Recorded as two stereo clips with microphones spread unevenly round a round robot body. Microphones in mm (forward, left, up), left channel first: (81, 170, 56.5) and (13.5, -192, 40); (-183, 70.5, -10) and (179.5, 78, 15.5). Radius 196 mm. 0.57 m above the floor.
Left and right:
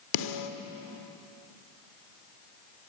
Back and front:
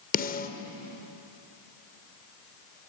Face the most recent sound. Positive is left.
turn(degrees=115)